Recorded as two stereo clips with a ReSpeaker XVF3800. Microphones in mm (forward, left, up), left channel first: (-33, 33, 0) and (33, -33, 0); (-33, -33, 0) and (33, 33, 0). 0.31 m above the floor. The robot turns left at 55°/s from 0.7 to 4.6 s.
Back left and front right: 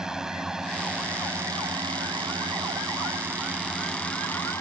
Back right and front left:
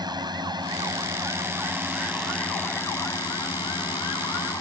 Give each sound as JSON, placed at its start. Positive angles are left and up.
{"t": 0.0, "sound": "a drone", "azimuth_deg": 35}